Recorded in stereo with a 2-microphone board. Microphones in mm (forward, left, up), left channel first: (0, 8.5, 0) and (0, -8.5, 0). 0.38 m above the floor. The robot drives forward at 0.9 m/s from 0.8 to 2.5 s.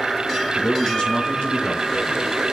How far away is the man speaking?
About 4 m.